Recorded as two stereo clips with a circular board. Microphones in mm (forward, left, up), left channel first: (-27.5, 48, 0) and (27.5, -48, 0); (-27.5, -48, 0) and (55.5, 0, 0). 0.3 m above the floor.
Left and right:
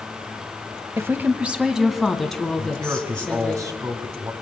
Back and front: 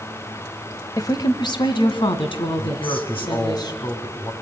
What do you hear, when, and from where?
1.0 s a woman speaking: 115° right, 1.3 m; by 3.6 s 160° right, 3.5 m
2.6 s a man speaking: 115° right, 3 m